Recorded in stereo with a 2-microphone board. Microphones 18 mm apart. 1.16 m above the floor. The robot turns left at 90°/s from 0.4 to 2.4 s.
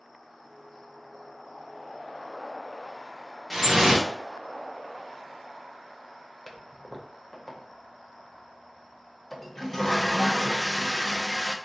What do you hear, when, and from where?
3.5 s dripping: 25° right (ahead or behind), 0.6 m
6.5 s a toilet flushing: 5° left (ahead or behind), 0.6 m